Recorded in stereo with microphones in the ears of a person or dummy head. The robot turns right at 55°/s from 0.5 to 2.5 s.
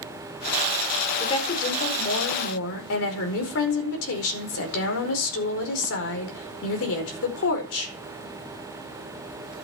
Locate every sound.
1.2 s a woman speaking: 25° left, 4.5 m; by 7.9 s 95° left, 4.5 m